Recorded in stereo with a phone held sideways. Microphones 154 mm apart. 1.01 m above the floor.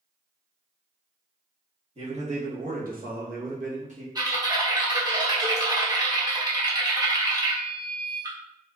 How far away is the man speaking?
About 1.4 m.